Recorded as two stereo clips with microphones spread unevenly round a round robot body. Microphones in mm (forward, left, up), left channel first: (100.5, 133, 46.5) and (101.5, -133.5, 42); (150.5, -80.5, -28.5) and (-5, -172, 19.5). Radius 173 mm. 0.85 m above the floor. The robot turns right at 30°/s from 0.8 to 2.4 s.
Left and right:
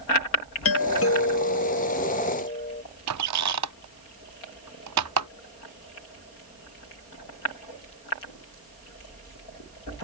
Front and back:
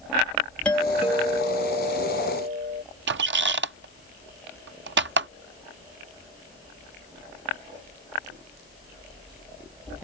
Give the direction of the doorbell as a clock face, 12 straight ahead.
9 o'clock.